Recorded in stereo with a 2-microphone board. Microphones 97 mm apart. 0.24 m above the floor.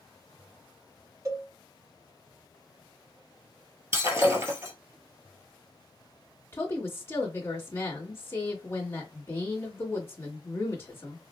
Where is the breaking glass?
30° right (ahead or behind), 1.4 m.